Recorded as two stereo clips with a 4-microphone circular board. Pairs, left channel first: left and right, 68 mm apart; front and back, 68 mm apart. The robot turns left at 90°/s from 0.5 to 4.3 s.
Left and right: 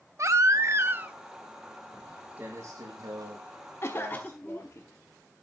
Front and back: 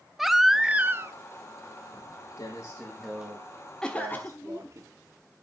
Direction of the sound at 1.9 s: 20° left.